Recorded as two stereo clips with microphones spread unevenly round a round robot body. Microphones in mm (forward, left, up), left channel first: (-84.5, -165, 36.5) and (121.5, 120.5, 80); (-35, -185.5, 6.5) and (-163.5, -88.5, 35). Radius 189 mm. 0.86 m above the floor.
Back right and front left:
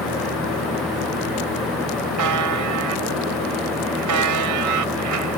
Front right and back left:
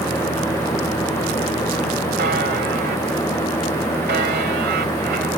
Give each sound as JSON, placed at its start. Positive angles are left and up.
{"t": 2.2, "sound": "a buzzer", "azimuth_deg": 95}